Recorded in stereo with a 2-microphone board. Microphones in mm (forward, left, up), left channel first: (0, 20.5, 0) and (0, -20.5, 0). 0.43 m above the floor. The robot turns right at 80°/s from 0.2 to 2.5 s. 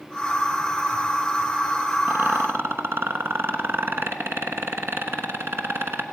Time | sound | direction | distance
2.1 | a rattle | 55° right (ahead or behind) | 0.9 m